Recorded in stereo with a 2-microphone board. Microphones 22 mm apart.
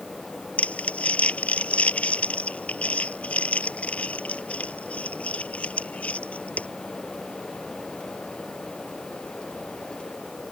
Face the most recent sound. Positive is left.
turn(degrees=85)